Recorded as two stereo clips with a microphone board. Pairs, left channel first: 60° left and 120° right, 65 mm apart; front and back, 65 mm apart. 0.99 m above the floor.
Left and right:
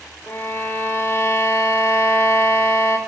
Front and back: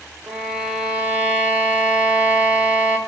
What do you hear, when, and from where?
0.3 s a violin: 110° left, 0.7 m